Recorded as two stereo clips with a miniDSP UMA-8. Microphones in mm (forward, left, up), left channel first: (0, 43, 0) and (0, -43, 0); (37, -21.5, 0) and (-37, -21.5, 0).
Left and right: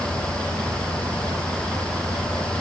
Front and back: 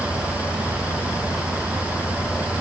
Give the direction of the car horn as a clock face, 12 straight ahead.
I don't hear a car horn.